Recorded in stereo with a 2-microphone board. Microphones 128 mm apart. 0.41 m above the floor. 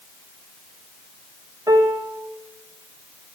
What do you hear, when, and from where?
1.7 s a piano: 25° right (ahead or behind), 0.8 m